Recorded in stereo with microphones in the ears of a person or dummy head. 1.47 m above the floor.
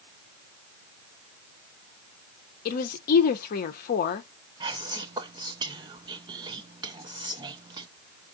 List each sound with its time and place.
2.6 s a woman speaking: 45° left (ahead or behind), 0.7 m
4.6 s whispering: 20° right (ahead or behind), 0.6 m